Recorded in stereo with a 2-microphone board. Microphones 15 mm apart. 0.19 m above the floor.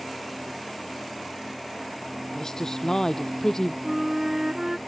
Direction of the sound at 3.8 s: 40° right (ahead or behind).